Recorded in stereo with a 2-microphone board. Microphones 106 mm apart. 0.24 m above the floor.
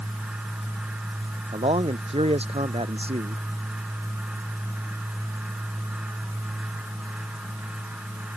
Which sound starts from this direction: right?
A man speaking, at 1.5 s.